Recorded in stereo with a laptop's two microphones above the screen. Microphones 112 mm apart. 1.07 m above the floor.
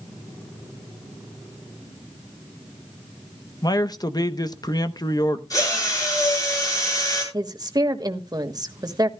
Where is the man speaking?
35° left (ahead or behind), 0.8 m.